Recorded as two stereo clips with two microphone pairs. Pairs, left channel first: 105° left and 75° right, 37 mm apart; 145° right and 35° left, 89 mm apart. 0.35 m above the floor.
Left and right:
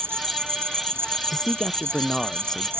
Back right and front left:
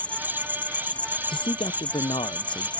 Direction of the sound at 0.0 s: 70° right.